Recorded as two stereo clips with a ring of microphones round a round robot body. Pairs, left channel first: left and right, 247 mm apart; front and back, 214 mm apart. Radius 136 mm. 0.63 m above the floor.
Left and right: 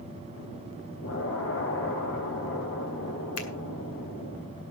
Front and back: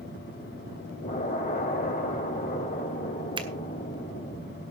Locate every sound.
1.0 s an explosion: 50° left, 4 m
3.4 s a finger snap: 110° left, 2 m